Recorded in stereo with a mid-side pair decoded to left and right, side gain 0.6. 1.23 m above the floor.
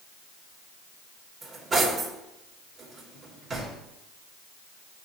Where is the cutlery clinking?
30° right, 2.5 m.